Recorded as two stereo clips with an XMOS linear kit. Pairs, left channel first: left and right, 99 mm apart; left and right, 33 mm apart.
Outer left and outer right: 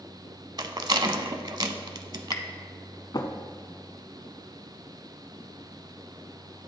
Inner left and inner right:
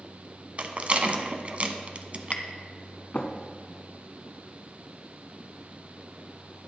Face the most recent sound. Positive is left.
turn(degrees=45)  # may be behind; listen again after turning